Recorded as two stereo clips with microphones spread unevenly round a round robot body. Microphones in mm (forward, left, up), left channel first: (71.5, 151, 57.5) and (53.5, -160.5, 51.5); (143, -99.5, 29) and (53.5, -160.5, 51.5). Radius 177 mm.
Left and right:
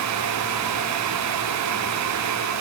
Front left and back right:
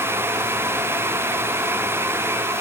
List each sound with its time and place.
Only background noise.